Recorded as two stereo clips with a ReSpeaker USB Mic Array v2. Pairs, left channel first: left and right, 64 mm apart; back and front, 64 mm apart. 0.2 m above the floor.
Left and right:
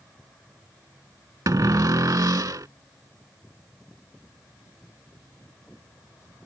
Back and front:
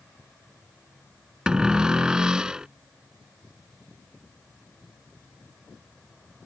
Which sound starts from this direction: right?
A cupboard door, at 1.5 s.